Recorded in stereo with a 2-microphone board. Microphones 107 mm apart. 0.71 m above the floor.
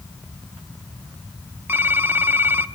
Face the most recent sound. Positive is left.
turn(degrees=-20)  # may be behind; listen again after turning